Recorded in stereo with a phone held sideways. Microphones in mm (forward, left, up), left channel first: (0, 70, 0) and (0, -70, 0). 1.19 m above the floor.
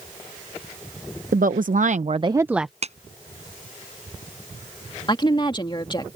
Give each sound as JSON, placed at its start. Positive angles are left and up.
{"t": 1.3, "sound": "a woman speaking", "side_deg": -75}
{"t": 2.8, "sound": "a clap", "side_deg": -50}
{"t": 5.1, "sound": "a woman speaking", "side_deg": 35}